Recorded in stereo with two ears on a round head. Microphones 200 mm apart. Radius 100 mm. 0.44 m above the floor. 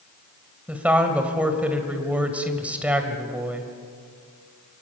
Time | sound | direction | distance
0.7 | a woman speaking | 5° right (ahead or behind) | 2.5 m